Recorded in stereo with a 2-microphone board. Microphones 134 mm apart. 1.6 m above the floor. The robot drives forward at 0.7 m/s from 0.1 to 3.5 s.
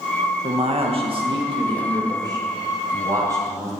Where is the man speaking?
55° right (ahead or behind), 1.8 m; by 3.7 s 25° right (ahead or behind), 3.5 m.